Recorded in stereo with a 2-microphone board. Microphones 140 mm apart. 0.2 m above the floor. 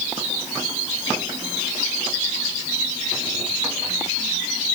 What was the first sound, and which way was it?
Only background noise.